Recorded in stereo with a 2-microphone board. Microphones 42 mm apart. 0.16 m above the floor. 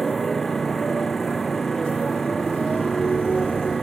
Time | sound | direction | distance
0.0 | a motorcycle | 5° left (ahead or behind) | ?